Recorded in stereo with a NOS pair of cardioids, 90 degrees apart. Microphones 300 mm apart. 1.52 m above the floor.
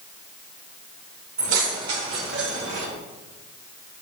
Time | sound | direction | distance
1.4 | keys jangling | 70° right | 4 m